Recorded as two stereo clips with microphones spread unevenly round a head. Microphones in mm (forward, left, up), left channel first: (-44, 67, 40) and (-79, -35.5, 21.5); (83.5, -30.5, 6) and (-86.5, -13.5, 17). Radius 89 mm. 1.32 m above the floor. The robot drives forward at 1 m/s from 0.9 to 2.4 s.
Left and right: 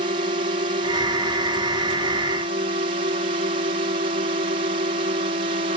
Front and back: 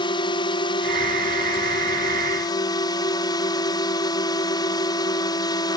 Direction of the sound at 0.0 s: 70° right.